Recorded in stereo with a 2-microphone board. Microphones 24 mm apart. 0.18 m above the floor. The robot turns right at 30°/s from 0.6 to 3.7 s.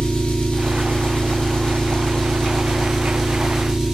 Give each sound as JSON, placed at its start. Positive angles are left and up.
{"t": 0.0, "sound": "an engine running", "azimuth_deg": 100, "distance_m": 1.2}